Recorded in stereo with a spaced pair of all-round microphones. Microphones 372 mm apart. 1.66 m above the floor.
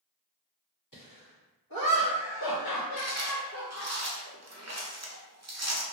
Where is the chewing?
45° right (ahead or behind), 0.6 m.